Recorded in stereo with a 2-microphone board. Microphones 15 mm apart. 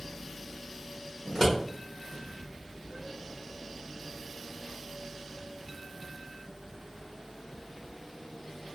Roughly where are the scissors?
Left.